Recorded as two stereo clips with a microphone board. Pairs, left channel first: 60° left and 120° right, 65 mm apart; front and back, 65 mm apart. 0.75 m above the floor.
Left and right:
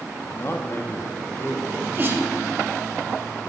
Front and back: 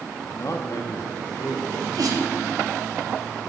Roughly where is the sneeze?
Behind.